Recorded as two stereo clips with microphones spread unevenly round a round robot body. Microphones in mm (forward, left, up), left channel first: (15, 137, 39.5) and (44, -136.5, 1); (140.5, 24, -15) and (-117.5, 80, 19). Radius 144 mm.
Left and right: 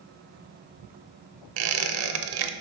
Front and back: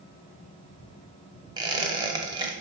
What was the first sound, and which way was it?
A squeak, 115° right.